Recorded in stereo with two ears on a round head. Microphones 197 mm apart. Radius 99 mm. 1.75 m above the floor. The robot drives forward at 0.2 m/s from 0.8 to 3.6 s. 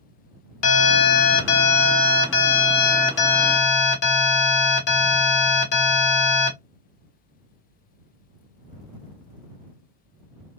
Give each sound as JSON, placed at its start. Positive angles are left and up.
{"t": 0.6, "sound": "an alarm", "side_deg": 75, "distance_m": 0.9}